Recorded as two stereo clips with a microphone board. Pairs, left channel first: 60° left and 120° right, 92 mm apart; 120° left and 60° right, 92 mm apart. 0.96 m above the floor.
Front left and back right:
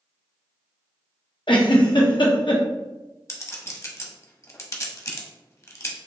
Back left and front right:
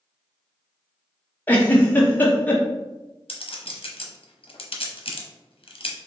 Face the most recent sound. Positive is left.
turn(degrees=115)